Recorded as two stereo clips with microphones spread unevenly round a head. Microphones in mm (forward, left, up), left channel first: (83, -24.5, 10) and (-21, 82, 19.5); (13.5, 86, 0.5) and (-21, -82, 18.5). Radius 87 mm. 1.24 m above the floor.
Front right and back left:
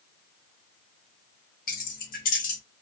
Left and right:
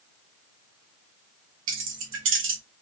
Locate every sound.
1.7 s keys jangling: 90° right, 1.2 m